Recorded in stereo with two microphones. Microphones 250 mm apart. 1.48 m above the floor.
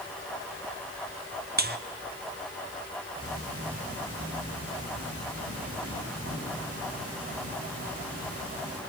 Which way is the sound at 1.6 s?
40° right (ahead or behind).